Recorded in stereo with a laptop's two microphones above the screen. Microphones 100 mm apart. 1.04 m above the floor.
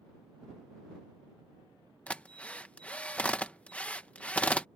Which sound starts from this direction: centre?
A drill, at 2.1 s.